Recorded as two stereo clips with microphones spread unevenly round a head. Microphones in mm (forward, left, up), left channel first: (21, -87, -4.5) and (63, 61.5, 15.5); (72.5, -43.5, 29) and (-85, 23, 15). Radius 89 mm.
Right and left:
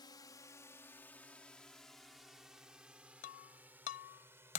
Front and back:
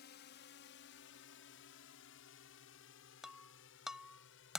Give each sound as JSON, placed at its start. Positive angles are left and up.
{"t": 0.0, "sound": "a drone", "azimuth_deg": -45}
{"t": 3.2, "sound": "breaking glass", "azimuth_deg": -110}